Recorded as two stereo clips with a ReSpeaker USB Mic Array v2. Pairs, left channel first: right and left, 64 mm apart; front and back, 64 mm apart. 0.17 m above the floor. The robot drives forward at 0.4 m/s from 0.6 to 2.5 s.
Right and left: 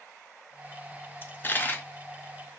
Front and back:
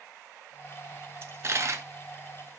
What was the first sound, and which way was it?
A dropped coin, 140° right.